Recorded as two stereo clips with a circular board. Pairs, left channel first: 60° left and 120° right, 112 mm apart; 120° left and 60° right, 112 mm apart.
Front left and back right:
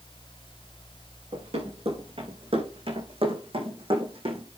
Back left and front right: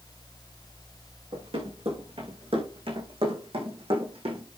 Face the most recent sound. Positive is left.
turn(degrees=-90)